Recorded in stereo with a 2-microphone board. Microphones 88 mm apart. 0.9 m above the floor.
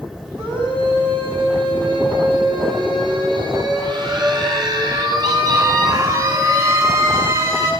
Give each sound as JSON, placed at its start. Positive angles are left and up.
{"t": 0.4, "sound": "a scream", "side_deg": -85, "distance_m": 7.5}